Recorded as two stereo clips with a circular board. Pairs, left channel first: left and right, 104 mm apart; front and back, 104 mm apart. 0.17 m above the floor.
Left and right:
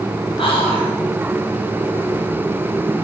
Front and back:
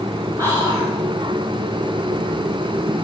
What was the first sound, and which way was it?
Whispering, 120° left.